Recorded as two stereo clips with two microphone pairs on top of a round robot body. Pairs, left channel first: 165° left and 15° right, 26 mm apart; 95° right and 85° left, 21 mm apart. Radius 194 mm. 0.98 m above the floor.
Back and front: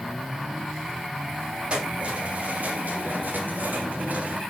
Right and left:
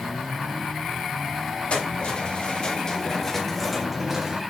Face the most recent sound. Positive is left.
turn(degrees=20)